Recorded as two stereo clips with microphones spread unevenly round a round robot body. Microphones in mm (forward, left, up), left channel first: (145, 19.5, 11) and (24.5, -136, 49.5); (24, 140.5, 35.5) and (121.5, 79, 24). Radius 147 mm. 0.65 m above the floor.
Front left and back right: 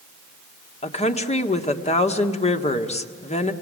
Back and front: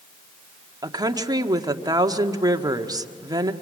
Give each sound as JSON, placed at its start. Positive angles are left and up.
{"t": 0.8, "sound": "a woman speaking", "azimuth_deg": 15, "distance_m": 1.6}